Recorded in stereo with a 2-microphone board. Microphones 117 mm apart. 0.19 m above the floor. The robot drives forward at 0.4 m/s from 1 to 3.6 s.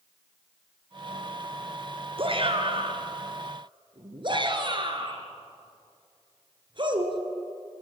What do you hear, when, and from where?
2.2 s a shout: 50° right (ahead or behind), 3 m; by 7.2 s 45° right (ahead or behind), 3.5 m